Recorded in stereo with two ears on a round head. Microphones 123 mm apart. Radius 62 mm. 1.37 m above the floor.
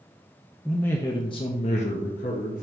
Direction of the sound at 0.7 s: Centre (ahead or behind).